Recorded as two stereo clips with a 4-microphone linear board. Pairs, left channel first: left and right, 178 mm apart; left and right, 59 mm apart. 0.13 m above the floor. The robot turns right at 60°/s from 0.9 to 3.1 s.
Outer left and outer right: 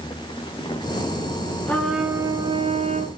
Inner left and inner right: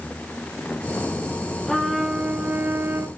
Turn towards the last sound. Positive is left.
turn(degrees=-105)